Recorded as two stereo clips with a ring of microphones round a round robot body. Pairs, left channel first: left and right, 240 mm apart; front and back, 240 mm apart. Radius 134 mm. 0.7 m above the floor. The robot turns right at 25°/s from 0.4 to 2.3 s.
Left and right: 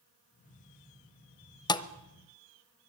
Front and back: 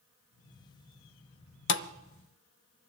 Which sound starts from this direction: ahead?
A thud, at 1.7 s.